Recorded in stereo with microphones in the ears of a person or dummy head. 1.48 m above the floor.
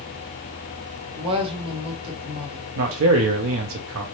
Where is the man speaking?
75° right (ahead or behind), 0.8 m.